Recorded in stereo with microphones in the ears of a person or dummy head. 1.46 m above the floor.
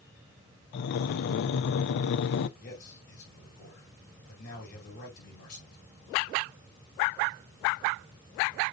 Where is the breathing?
55° left (ahead or behind), 0.6 m.